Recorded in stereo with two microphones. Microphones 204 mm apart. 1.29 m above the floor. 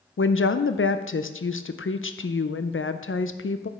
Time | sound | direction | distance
0.2 | a woman speaking | 75° left (ahead or behind) | 0.5 m